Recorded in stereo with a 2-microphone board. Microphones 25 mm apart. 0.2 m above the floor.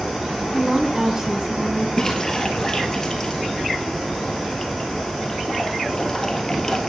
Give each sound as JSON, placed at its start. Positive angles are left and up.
{"t": 0.5, "sound": "a woman speaking", "side_deg": -15, "distance_m": 1.4}
{"t": 2.0, "sound": "a splash", "side_deg": 25, "distance_m": 1.6}